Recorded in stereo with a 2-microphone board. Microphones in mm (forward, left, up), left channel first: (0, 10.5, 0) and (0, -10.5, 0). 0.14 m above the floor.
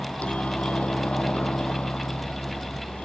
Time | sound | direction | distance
0.0 | a helicopter | 65° left (ahead or behind) | ?